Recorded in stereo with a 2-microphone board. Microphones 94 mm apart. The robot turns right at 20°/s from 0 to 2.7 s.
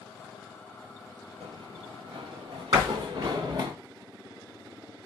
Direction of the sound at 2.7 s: 40° right (ahead or behind).